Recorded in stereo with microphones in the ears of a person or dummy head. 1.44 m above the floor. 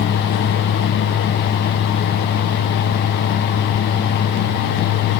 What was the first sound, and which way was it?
Only background noise.